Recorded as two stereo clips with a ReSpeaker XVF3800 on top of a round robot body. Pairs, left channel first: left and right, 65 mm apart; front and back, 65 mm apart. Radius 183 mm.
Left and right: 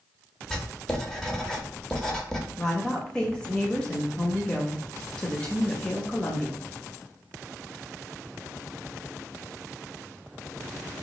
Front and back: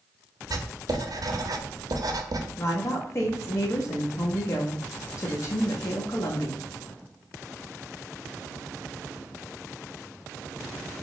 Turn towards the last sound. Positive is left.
turn(degrees=20)